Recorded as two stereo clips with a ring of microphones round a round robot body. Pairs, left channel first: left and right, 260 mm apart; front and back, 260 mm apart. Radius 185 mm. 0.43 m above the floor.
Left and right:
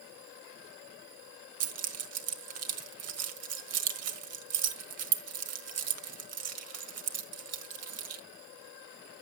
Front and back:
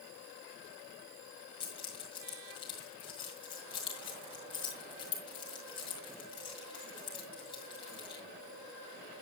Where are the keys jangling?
75° right, 1.6 m.